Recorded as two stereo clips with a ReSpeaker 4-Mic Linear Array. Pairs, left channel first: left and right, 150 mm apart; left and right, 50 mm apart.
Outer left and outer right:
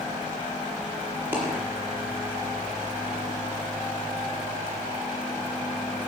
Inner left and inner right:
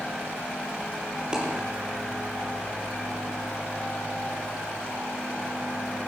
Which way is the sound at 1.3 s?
10° right (ahead or behind).